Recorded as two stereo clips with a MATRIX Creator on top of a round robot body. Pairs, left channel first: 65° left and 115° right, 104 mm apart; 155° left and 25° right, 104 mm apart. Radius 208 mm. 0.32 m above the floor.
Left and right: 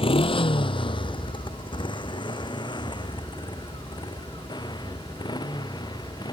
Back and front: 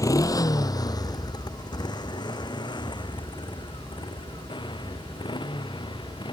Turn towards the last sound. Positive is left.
turn(degrees=115)